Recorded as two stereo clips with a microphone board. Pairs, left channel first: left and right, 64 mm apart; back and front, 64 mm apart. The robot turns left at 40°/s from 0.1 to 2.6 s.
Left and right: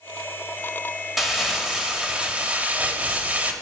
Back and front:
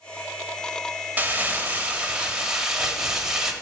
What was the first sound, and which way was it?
Crumpling, 10° right.